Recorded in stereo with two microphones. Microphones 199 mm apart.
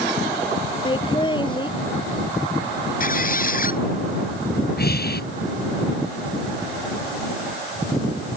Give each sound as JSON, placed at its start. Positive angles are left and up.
{"t": 0.8, "sound": "laughter", "side_deg": 25}
{"t": 3.0, "sound": "a squeak", "side_deg": 45}
{"t": 4.8, "sound": "breathing", "side_deg": 55}